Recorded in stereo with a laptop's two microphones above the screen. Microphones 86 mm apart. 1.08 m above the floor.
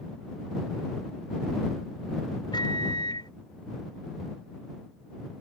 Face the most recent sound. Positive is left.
turn(degrees=55)  # may be behind; listen again after turning